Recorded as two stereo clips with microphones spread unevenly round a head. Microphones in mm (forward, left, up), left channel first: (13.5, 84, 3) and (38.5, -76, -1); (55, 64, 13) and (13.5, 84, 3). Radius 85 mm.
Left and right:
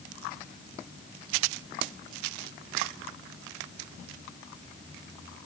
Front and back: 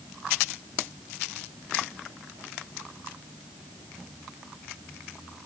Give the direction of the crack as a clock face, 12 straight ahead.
No crack in this recording.